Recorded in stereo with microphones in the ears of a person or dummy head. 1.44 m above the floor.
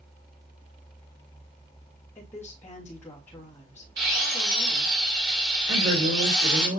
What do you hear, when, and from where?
2.1 s a woman speaking: 10° left (ahead or behind), 2.5 m
4.0 s a drill: 55° right (ahead or behind), 3 m
5.7 s a man speaking: 85° right, 4.5 m